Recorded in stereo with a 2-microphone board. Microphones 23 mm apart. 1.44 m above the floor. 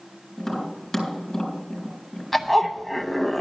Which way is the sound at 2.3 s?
5° left (ahead or behind).